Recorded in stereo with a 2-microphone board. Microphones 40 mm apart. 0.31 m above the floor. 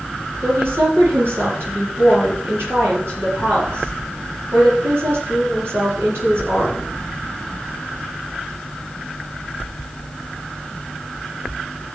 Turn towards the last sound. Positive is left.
turn(degrees=-80)